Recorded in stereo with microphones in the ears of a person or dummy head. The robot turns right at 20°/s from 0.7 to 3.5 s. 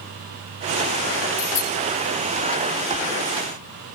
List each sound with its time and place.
1.4 s a bicycle bell: 15° left (ahead or behind), 3 m; by 1.7 s 20° left (ahead or behind), 3 m